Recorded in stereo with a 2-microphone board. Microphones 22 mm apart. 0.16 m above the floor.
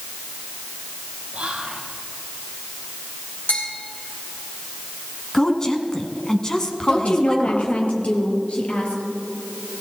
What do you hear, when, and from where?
1.3 s whispering: 50° right (ahead or behind), 4 m
3.5 s a bell: 75° left (ahead or behind), 8 m
5.3 s a woman speaking: 30° left (ahead or behind), 1.7 m
6.9 s a woman speaking: 60° left (ahead or behind), 3.5 m